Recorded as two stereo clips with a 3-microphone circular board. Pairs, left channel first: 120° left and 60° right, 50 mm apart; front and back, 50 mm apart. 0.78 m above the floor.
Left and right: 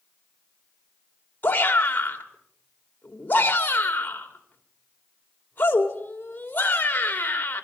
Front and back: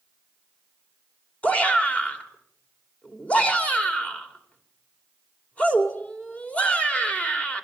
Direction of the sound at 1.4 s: 65° left.